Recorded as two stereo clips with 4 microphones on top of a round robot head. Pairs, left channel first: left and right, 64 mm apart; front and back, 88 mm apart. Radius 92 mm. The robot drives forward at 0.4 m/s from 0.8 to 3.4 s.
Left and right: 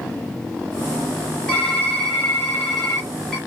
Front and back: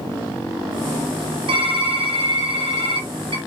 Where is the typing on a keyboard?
175° left, 2.0 m.